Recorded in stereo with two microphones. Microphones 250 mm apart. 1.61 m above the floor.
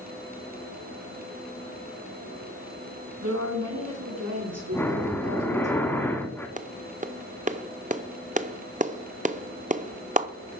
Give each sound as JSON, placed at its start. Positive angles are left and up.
{"t": 3.2, "sound": "a woman speaking", "side_deg": -80, "distance_m": 3.0}
{"t": 4.7, "sound": "breathing", "side_deg": 10, "distance_m": 1.2}
{"t": 6.6, "sound": "a clap", "side_deg": -30, "distance_m": 0.5}